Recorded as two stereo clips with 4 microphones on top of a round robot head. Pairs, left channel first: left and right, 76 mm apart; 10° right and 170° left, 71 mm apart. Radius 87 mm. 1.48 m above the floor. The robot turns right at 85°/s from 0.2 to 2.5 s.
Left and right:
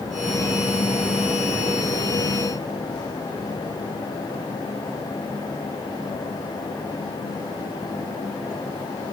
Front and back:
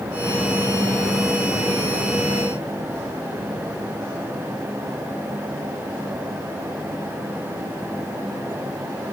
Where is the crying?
No crying in this recording.